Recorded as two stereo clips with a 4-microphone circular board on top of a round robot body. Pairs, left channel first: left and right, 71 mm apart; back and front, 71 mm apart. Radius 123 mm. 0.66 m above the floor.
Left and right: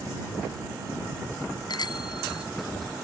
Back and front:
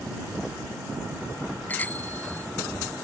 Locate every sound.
1.7 s a bicycle bell: 115° left